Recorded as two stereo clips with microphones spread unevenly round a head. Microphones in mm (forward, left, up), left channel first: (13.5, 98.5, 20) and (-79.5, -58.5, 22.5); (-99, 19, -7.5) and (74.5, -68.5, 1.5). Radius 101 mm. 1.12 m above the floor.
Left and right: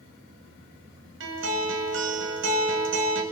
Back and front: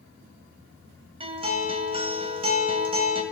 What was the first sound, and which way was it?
A guitar, 90° right.